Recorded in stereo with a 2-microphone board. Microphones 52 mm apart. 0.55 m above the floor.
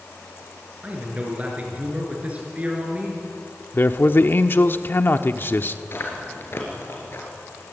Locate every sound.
0.8 s a man speaking: 25° right (ahead or behind), 6.5 m
3.7 s a man speaking: 45° left (ahead or behind), 1.2 m
5.9 s chewing: 50° left (ahead or behind), 5 m